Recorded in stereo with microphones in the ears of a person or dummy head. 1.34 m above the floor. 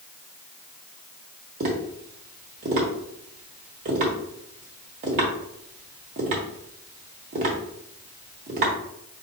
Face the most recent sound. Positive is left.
turn(degrees=-30)  # may be behind; listen again after turning